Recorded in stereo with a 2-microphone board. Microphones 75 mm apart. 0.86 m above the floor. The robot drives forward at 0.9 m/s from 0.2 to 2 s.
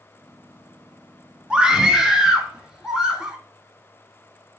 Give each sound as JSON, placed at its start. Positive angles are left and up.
{"t": 1.5, "sound": "a scream", "side_deg": -10, "distance_m": 1.4}